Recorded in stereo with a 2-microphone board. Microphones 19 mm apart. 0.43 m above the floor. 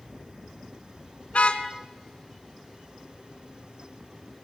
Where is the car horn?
85° left, 2 m.